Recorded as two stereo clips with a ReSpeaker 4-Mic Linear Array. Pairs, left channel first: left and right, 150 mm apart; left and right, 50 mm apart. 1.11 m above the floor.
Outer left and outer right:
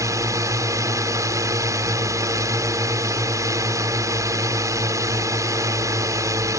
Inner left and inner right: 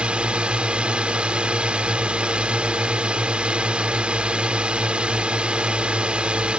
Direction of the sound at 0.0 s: 20° right (ahead or behind).